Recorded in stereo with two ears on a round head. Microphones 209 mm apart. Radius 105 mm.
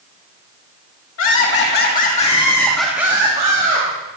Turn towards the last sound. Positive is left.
turn(degrees=-35)  # may be behind; listen again after turning